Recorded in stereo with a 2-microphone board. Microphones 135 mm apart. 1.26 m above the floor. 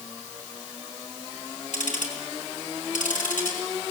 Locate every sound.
1.7 s ticking: 75° left (ahead or behind), 5 m